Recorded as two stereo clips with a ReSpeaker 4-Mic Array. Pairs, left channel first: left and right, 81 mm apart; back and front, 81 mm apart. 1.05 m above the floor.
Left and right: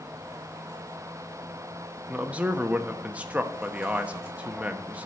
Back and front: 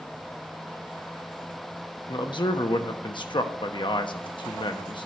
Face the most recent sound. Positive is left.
turn(degrees=-165)